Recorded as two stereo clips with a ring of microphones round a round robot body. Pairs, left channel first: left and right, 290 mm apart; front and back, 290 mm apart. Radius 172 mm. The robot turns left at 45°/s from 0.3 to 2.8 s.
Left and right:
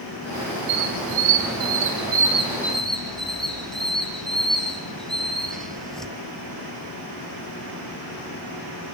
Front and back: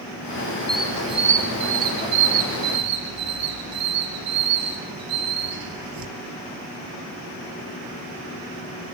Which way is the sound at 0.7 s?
85° right.